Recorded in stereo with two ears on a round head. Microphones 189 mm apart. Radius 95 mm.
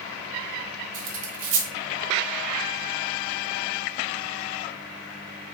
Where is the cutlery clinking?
65° right (ahead or behind), 0.9 m.